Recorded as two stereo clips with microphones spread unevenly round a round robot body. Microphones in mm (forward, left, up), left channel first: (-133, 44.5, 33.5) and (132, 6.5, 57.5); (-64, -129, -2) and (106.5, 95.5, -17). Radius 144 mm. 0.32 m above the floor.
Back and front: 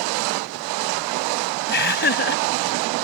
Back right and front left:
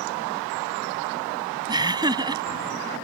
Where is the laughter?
130° left.